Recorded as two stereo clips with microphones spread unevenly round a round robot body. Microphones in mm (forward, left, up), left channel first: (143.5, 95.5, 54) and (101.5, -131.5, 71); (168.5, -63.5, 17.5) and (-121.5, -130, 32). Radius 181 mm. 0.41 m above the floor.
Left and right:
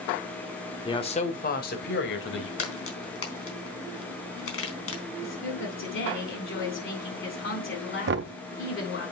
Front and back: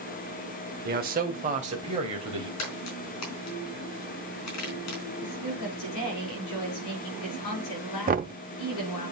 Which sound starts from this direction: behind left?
A man speaking, at 0.8 s.